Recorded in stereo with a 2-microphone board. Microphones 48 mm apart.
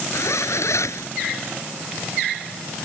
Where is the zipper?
85° left.